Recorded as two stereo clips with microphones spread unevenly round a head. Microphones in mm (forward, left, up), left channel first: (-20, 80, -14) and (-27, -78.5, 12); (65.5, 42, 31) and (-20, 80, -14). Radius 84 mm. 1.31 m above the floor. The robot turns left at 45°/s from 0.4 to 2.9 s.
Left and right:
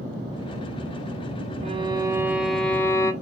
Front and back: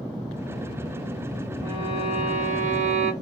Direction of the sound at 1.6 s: 135° right.